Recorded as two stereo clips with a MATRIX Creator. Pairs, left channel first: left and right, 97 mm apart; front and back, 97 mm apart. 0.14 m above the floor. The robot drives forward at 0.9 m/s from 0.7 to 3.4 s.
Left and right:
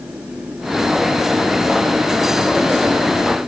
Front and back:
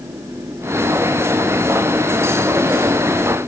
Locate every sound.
Only background noise.